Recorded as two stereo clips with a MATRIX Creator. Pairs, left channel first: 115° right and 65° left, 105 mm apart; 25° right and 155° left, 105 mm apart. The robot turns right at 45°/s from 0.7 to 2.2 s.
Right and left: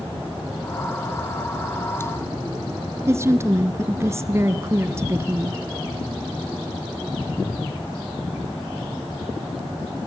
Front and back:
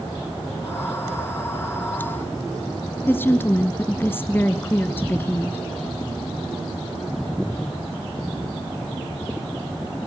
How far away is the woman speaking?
About 1.2 m.